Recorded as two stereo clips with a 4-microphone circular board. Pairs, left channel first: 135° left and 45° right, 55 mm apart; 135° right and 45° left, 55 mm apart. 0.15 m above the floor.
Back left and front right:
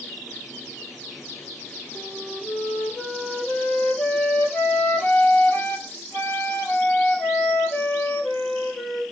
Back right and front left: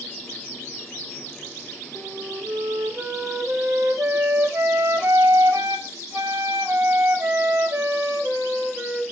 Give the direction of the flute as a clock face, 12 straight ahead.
9 o'clock.